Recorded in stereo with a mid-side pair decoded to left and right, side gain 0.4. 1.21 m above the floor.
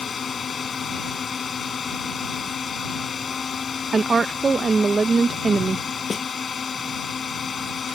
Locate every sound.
0.0 s a drone: 45° left
3.9 s a woman speaking: 40° right
6.1 s a snare drum: 35° left